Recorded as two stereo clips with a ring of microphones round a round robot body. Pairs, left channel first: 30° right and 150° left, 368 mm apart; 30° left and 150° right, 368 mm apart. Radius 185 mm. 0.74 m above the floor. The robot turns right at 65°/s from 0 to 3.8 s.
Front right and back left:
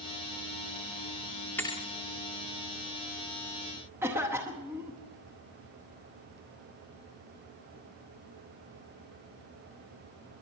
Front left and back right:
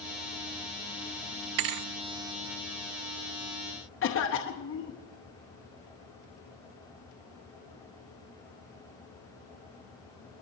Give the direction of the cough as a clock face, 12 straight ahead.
10 o'clock.